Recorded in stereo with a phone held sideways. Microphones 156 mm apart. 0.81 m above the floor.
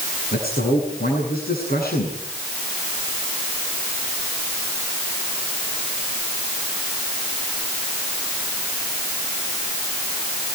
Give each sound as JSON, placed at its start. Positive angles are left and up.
{"t": 0.3, "sound": "a man speaking", "side_deg": 75, "distance_m": 8.5}